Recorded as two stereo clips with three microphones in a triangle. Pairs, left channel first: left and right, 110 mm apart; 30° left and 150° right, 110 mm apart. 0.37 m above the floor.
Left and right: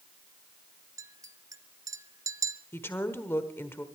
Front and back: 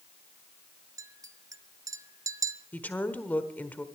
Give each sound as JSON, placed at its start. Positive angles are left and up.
{"t": 1.0, "sound": "a clink", "azimuth_deg": -120, "distance_m": 1.0}
{"t": 2.7, "sound": "a woman speaking", "azimuth_deg": 75, "distance_m": 1.2}